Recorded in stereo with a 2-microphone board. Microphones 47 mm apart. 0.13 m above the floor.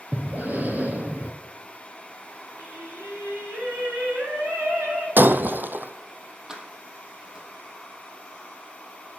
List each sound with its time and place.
0.1 s breathing: 40° right (ahead or behind), 2 m
2.6 s singing: 70° right (ahead or behind), 6.5 m
5.2 s breaking glass: 45° right (ahead or behind), 0.7 m
6.5 s keys jangling: 15° right (ahead or behind), 3 m